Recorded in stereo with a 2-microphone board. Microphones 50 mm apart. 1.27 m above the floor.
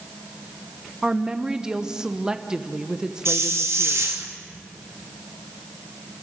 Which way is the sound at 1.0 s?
15° right (ahead or behind).